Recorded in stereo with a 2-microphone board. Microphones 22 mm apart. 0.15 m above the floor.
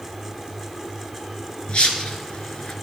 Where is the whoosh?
55° left (ahead or behind), 2.5 m.